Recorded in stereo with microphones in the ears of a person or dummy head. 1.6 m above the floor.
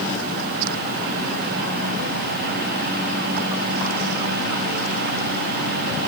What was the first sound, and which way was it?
Only background noise.